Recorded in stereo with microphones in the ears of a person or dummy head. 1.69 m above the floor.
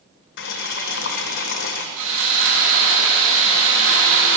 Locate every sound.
0.4 s boiling: 55° left (ahead or behind), 1.4 m
2.0 s sawing: 75° right (ahead or behind), 8 m